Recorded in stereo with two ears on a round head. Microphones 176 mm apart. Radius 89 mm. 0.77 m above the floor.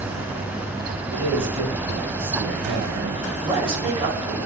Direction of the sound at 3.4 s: 30° right (ahead or behind).